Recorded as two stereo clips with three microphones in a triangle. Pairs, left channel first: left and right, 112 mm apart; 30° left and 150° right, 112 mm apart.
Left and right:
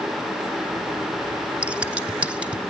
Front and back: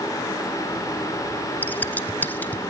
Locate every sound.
1.6 s scissors: 25° right, 0.8 m